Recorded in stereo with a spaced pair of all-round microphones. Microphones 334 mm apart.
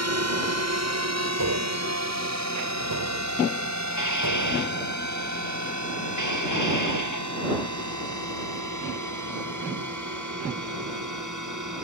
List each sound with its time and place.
0.0 s a drone: 45° right (ahead or behind); by 11.8 s 55° right (ahead or behind)
1.4 s tapping: 65° right (ahead or behind)
3.9 s dishes clattering: 55° left (ahead or behind)